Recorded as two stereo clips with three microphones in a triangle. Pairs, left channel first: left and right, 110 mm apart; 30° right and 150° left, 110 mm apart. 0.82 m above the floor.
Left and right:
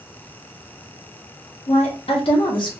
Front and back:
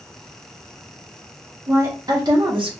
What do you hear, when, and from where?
1.7 s a woman speaking: 90° left, 1.5 m; by 2.7 s 125° left, 1.2 m